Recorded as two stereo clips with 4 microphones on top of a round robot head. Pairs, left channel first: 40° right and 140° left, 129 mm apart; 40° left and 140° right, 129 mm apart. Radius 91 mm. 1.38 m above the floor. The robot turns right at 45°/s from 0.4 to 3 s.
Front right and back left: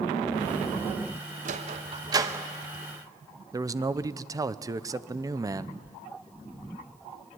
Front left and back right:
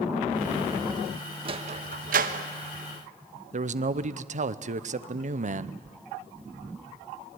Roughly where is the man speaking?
Behind right.